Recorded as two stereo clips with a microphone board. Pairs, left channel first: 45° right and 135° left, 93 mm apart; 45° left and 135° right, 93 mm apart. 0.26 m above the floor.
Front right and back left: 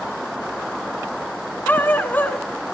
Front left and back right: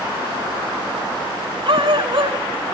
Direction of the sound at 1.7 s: 115° right.